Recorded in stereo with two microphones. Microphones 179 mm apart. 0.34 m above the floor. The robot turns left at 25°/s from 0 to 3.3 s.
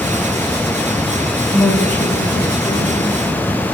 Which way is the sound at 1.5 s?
Straight behind.